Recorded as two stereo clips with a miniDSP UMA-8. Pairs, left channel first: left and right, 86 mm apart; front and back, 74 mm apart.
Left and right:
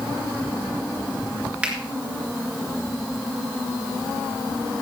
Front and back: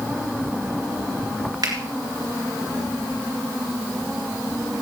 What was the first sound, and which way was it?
A finger snap, 165° right.